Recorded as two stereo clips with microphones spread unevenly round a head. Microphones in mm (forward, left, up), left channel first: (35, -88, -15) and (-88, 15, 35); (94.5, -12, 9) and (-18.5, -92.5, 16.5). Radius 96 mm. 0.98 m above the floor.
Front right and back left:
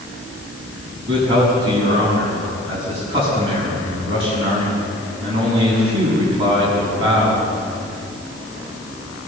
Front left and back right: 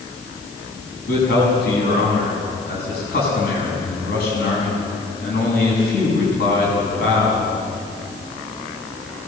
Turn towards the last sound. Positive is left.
turn(degrees=75)